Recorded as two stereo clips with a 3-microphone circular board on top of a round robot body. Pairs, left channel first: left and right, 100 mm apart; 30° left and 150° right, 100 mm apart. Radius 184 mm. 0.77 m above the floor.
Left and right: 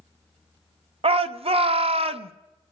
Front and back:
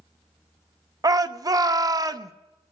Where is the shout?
100° right, 0.8 m.